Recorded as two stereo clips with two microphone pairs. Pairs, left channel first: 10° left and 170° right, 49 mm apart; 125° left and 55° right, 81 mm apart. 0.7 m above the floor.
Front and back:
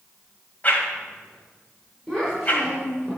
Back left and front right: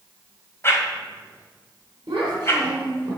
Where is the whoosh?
65° left, 2.0 m.